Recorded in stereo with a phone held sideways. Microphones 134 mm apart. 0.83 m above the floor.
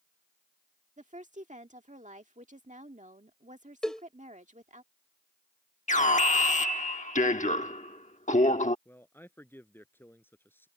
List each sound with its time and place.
1.0 s a woman speaking: 65° right (ahead or behind)
3.8 s a cowbell: 5° left (ahead or behind)
5.9 s an alarm: 65° left (ahead or behind)
8.8 s a man speaking: 15° left (ahead or behind)